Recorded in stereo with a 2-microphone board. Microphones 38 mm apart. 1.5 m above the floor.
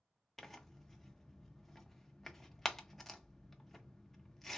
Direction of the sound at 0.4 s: 5° left (ahead or behind).